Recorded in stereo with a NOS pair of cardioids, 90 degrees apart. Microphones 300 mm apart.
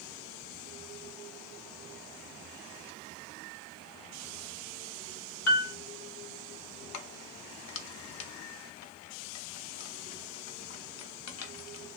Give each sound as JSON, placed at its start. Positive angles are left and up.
{"t": 5.5, "sound": "a piano", "azimuth_deg": 60, "distance_m": 1.4}
{"t": 6.9, "sound": "keys jangling", "azimuth_deg": 60, "distance_m": 0.8}